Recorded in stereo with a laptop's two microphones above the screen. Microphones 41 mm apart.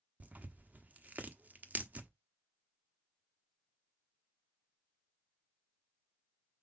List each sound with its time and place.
0.2 s tearing paper: 35° right (ahead or behind), 1.0 m